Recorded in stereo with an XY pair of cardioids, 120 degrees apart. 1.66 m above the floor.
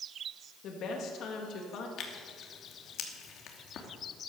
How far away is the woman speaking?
About 3 m.